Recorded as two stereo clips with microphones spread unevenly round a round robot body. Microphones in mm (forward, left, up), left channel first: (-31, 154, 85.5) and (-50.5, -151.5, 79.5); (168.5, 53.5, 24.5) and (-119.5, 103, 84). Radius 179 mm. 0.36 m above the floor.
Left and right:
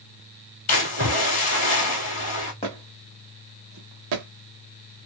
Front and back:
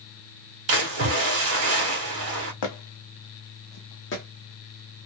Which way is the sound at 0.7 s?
130° left.